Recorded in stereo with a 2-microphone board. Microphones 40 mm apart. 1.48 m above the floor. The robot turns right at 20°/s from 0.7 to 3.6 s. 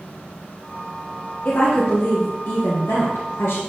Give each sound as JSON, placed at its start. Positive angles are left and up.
{"t": 1.4, "sound": "a woman speaking", "azimuth_deg": 45, "distance_m": 1.3}